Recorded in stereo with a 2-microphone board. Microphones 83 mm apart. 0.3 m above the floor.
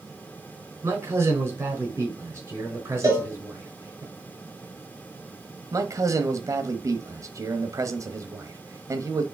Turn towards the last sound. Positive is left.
turn(degrees=-45)  # may be behind; listen again after turning